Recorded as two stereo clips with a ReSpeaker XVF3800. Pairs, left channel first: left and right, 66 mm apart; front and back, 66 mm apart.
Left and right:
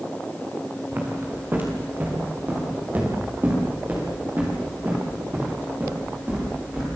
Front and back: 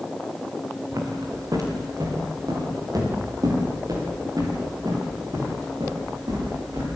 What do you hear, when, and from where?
0.9 s footsteps: 150° right, 6.5 m; by 6.8 s 155° right, 14 m